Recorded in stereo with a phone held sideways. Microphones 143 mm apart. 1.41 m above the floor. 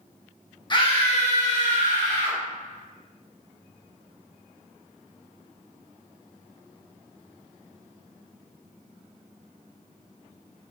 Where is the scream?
30° left (ahead or behind), 0.7 m; by 2.4 s 75° left (ahead or behind), 1.6 m.